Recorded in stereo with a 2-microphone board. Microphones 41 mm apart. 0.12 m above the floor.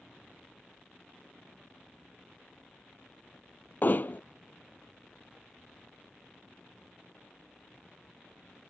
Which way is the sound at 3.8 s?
45° left (ahead or behind).